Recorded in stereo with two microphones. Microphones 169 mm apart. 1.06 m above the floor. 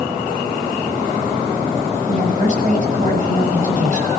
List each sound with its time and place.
2.1 s a woman speaking: 50° right (ahead or behind), 7 m